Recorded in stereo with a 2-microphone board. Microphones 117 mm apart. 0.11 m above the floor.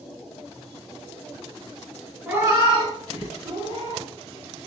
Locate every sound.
2.3 s a cat meowing: 10° right (ahead or behind), 0.8 m; by 4.0 s 75° right (ahead or behind), 3 m